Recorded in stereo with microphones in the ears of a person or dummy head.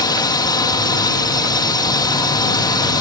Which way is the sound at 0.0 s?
25° left (ahead or behind).